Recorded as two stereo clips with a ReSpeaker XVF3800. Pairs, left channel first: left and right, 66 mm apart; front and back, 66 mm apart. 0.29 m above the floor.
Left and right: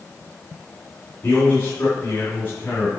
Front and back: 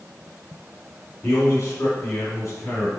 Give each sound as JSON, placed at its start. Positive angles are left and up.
{"t": 1.2, "sound": "a man speaking", "azimuth_deg": 30, "distance_m": 3.0}